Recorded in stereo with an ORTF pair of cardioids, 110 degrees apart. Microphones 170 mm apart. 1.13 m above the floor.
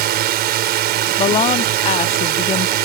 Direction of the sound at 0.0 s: 70° right.